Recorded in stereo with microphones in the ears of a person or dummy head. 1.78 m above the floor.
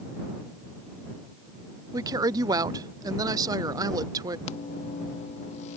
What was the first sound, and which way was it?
A woman speaking, 15° right (ahead or behind).